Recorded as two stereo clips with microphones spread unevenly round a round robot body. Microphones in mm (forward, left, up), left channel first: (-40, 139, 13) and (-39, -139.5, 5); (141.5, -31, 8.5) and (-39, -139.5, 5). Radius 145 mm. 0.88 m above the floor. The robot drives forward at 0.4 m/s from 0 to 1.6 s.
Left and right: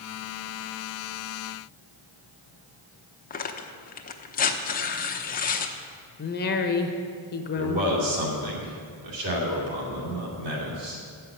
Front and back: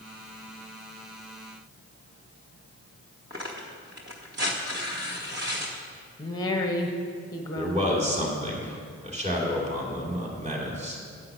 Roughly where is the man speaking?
Right.